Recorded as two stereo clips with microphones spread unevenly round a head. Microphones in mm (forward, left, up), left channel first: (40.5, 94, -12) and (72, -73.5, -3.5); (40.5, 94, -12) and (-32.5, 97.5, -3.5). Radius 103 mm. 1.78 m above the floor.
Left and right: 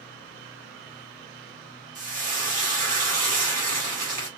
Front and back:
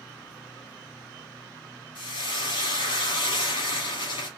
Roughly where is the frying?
Ahead right.